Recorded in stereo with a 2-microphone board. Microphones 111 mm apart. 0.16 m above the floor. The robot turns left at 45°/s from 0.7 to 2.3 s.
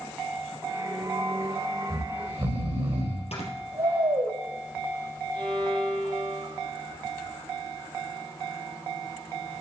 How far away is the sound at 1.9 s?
About 4 m.